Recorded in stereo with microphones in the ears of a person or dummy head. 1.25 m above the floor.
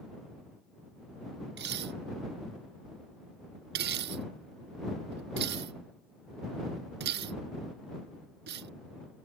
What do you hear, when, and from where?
1.6 s dishes clattering: 60° right (ahead or behind)